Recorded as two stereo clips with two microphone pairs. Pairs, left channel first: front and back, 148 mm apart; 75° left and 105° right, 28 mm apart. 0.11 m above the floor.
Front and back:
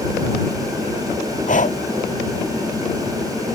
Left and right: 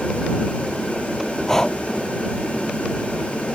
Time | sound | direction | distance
1.5 | breathing | 10° left | ?